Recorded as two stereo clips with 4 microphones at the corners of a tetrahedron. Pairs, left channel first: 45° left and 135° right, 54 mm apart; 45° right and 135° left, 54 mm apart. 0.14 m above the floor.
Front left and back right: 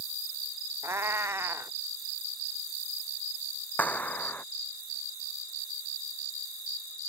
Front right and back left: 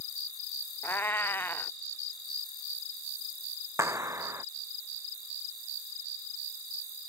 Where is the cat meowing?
95° right.